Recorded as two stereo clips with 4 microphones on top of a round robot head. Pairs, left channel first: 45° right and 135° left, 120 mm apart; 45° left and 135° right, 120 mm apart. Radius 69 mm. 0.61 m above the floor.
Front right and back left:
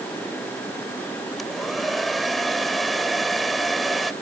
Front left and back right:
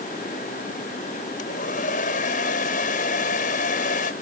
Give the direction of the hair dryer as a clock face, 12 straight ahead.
10 o'clock.